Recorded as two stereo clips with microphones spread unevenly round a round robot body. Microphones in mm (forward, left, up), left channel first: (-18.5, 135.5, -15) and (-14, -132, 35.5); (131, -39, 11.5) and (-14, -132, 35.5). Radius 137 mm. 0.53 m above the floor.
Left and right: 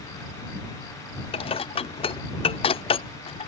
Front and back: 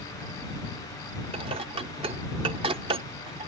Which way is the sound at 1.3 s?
150° left.